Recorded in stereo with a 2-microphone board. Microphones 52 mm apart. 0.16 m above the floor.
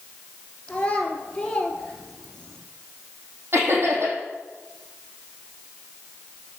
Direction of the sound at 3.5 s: 50° right (ahead or behind).